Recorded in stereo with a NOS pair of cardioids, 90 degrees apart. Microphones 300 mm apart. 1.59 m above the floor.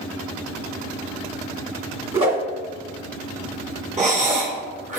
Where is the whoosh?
20° right, 2 m.